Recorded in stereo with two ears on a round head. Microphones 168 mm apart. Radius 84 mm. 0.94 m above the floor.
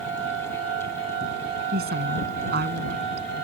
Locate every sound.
1.7 s a woman speaking: 55° right (ahead or behind)